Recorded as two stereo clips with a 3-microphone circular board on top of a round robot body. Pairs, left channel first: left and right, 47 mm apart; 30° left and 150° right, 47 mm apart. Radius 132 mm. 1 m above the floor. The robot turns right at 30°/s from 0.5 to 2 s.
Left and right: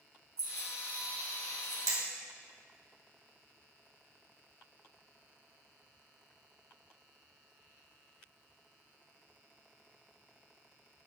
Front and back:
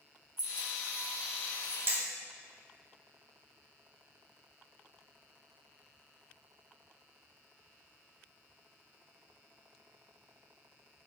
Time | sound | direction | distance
0.4 | keys jangling | 110° right | 4 m
1.9 | hammering | 105° right | 2 m